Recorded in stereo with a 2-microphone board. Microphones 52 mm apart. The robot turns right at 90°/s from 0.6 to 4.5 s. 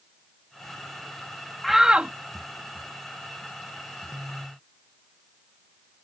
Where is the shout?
175° left; by 2.1 s 140° right.